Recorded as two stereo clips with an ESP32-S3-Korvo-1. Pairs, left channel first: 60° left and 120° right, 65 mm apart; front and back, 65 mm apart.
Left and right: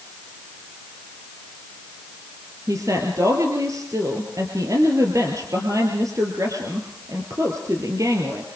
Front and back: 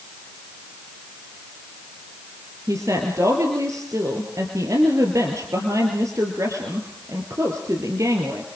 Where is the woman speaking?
150° right, 3.5 m.